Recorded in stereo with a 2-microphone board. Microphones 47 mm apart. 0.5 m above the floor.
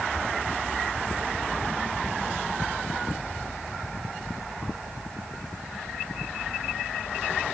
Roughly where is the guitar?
No guitar in this recording.